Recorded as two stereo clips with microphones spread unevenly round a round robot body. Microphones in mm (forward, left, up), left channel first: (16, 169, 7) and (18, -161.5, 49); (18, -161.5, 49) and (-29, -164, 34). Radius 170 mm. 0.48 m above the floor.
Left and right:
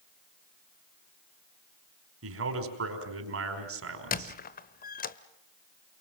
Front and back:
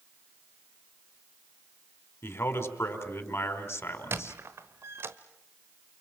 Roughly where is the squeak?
Behind left.